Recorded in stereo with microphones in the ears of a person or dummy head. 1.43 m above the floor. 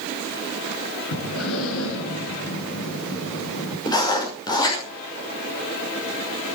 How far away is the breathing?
About 6 m.